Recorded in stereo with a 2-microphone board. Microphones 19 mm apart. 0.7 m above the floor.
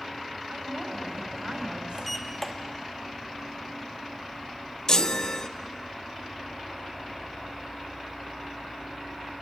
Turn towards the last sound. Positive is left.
turn(degrees=35)  # may be behind; listen again after turning